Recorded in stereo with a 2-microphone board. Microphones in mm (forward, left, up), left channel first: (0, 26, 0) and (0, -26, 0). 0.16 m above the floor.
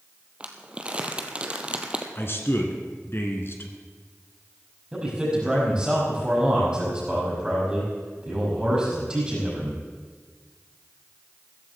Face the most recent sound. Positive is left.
turn(degrees=-20)  # may be behind; listen again after turning